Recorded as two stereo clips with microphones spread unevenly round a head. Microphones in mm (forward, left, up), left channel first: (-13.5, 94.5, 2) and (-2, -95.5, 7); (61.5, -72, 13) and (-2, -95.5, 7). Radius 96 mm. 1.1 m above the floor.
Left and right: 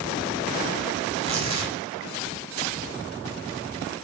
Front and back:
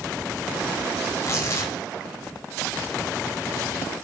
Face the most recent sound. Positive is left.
turn(degrees=-25)